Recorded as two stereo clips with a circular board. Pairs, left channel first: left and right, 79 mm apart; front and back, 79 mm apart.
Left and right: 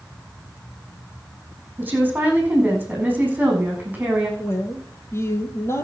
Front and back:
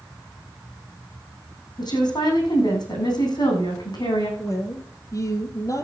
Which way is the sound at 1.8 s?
20° right.